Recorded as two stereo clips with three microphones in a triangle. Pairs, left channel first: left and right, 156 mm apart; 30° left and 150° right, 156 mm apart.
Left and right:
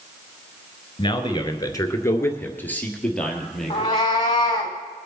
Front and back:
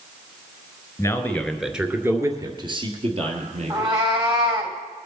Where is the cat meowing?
150° left, 3 m.